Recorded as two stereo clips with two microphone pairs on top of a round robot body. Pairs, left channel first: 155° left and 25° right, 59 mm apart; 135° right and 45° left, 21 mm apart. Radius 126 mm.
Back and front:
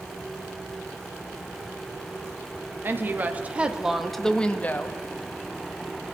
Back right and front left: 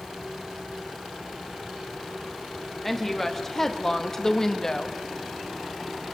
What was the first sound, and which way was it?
A woman speaking, 50° right.